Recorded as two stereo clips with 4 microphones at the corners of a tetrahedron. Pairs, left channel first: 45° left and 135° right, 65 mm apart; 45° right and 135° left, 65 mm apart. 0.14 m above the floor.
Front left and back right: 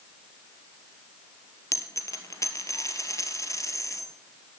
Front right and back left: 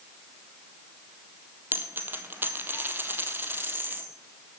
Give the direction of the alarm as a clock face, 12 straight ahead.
I don't hear an alarm.